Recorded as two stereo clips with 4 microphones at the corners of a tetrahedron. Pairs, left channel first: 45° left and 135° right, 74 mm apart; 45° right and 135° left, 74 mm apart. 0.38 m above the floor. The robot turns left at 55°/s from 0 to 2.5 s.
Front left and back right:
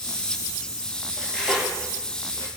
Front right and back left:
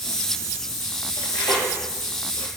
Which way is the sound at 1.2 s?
30° right.